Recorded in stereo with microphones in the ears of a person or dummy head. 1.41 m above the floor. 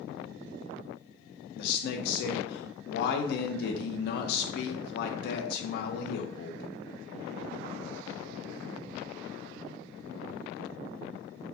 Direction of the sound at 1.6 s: 65° left (ahead or behind).